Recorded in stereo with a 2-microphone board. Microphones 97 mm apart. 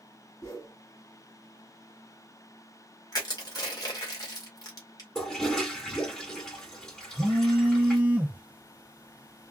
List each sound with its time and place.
0.4 s a whoosh: 40° left (ahead or behind), 1.8 m
3.1 s crushing: 45° left (ahead or behind), 1.7 m
5.2 s a toilet flushing: 5° left (ahead or behind), 2.5 m
7.2 s a phone buzzing: 15° right (ahead or behind), 0.9 m